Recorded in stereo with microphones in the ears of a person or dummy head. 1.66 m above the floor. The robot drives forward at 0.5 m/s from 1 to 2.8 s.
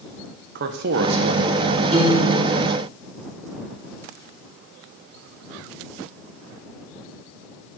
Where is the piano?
25° right (ahead or behind), 3 m; by 2.5 s 30° right (ahead or behind), 2.5 m.